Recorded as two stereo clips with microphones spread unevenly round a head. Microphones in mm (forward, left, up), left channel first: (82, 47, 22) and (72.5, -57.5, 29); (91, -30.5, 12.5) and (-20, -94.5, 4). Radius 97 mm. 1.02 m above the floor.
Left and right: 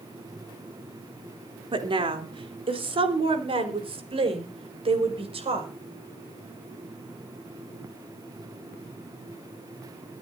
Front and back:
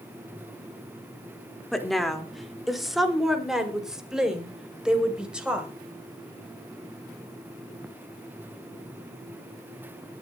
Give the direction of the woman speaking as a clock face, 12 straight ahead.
2 o'clock.